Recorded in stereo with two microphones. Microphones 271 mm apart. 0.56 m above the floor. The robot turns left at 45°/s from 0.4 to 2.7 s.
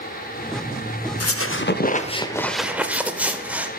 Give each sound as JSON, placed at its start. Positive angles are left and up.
{"t": 1.2, "sound": "a squeak", "azimuth_deg": 60, "distance_m": 0.5}